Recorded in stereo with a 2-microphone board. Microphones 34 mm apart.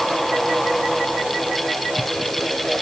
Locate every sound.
Only background noise.